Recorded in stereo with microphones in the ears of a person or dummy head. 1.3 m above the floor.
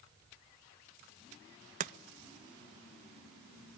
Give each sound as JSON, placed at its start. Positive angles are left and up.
{"t": 1.8, "sound": "chopping", "side_deg": -35, "distance_m": 0.6}